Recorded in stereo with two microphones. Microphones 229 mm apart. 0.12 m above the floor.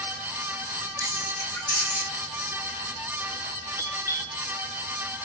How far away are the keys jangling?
About 3.5 m.